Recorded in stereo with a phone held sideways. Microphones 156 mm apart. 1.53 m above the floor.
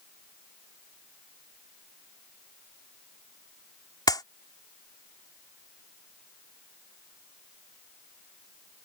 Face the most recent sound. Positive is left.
turn(degrees=25)  # may be behind; listen again after turning